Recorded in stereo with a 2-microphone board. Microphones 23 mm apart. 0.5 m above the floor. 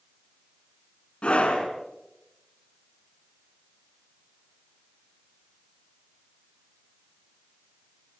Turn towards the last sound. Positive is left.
turn(degrees=60)  # may be behind; listen again after turning